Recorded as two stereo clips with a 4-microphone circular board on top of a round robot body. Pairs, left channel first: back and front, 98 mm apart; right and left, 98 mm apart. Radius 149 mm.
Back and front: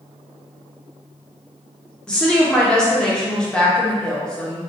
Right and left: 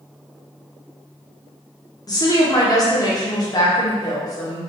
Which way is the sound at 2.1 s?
105° right.